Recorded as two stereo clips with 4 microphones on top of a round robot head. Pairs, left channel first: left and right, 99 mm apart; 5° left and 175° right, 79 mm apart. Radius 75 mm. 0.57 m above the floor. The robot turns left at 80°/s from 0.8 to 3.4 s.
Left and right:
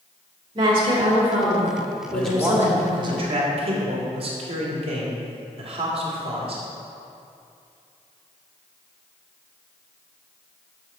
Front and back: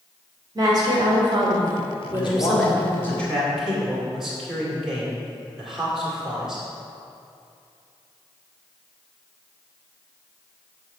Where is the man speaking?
15° left, 2 m; by 6.6 s 85° right, 2 m.